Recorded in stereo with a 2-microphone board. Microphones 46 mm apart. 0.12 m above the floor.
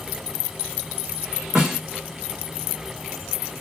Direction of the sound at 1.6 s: 15° right (ahead or behind).